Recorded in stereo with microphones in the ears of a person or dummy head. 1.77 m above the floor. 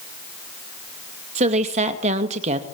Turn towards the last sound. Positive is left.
turn(degrees=-40)  # may be behind; listen again after turning